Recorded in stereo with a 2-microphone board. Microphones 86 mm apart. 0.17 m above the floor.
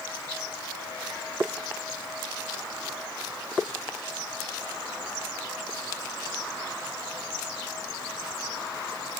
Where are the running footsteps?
No running footsteps in this recording.